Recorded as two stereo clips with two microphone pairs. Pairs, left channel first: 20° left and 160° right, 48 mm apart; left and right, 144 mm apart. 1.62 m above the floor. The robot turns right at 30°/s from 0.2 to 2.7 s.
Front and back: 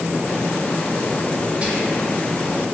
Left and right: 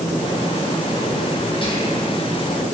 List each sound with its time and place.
1.6 s whispering: 140° left, 0.6 m; by 2.1 s 155° left, 0.6 m